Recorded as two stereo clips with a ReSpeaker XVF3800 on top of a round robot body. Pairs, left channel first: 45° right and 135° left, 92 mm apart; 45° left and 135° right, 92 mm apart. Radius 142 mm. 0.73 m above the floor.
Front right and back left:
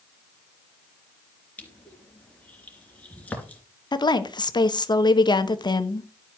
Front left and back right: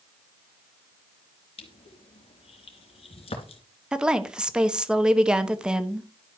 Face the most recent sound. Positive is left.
turn(degrees=-55)